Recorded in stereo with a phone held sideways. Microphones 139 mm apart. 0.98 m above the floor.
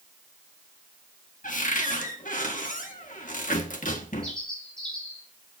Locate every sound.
1.4 s a cupboard door: 75° left (ahead or behind), 1.5 m
4.2 s a bird: 5° left (ahead or behind), 6 m